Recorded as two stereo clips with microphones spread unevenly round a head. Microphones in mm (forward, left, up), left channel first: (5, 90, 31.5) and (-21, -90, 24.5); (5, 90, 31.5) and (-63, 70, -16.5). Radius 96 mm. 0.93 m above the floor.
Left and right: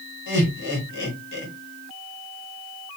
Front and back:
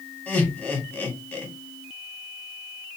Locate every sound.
0.3 s laughter: 95° left, 1.7 m